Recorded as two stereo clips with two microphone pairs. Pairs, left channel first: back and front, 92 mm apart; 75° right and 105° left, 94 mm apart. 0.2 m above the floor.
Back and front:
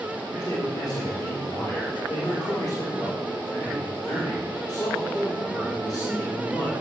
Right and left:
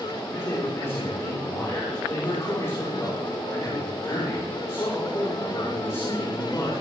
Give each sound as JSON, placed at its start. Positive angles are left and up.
{"t": 0.3, "sound": "a man speaking", "azimuth_deg": -130, "distance_m": 8.5}